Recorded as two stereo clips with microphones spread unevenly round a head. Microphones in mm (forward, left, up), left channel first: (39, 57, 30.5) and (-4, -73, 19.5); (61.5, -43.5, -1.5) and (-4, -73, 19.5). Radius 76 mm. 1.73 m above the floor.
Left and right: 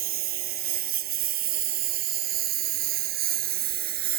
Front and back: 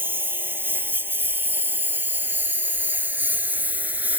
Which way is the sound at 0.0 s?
100° right.